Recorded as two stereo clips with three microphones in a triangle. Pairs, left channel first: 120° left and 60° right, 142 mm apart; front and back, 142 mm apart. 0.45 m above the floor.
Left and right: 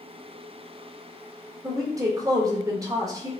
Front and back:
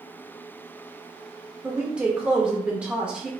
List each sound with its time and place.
1.6 s a woman speaking: 105° right, 0.8 m